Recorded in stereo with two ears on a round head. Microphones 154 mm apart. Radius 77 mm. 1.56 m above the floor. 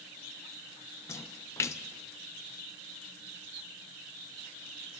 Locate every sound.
1.1 s a splash: 15° left (ahead or behind), 0.8 m